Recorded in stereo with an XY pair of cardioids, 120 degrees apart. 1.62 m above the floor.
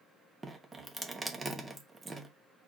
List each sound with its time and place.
0.4 s dripping: 20° right, 1.0 m